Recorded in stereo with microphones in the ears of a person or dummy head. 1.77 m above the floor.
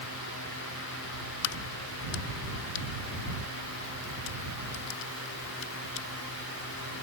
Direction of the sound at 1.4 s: 70° left (ahead or behind).